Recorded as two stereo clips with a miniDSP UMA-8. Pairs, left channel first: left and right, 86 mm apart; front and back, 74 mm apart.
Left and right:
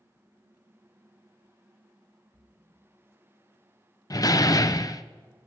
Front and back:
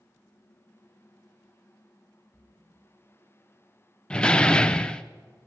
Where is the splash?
80° right, 6.5 m.